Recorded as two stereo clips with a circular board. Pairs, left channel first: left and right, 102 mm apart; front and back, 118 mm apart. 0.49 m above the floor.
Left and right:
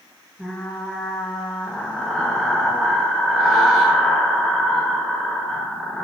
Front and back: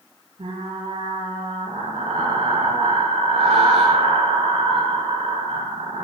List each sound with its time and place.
0.4 s frying: 175° right, 7.5 m